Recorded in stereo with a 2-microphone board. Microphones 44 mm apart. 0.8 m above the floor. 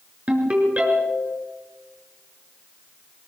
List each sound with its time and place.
0.3 s a ringtone: 30° right (ahead or behind), 5 m